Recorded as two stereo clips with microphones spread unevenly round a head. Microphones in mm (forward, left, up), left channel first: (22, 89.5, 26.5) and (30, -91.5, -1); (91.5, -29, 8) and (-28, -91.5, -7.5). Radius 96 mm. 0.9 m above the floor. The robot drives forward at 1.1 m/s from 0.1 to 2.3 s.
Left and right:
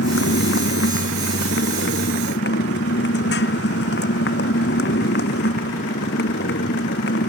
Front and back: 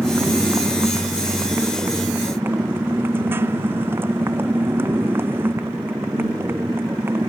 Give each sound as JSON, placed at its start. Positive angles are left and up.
{"t": 0.0, "sound": "a motorcycle", "azimuth_deg": 125}